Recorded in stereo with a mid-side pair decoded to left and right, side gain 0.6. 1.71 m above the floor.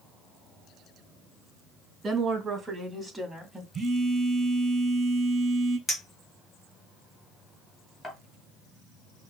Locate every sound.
2.0 s a woman speaking: 35° right, 2.5 m; by 3.6 s straight ahead, 1.9 m
3.7 s a phone buzzing: 20° right, 3 m
5.9 s a clink: 15° left, 2 m